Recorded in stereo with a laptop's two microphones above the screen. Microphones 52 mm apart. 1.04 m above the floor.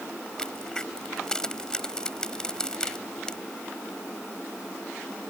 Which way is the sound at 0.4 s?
15° left (ahead or behind).